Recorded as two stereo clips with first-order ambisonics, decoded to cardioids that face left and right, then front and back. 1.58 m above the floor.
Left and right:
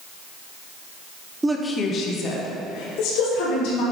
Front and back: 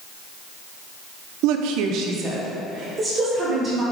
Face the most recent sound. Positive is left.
turn(degrees=105)